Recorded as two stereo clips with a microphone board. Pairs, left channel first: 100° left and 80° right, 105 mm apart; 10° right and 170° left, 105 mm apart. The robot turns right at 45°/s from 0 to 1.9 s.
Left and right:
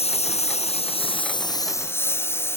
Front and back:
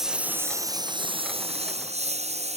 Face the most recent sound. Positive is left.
turn(degrees=165)